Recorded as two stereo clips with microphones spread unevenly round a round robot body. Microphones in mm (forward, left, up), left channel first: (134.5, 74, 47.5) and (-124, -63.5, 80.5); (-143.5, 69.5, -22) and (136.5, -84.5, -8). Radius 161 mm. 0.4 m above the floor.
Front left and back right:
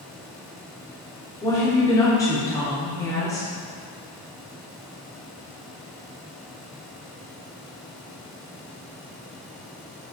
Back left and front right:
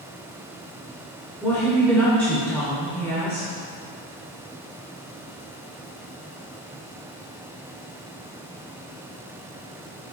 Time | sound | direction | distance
1.4 | a woman speaking | 75° left | 1.5 m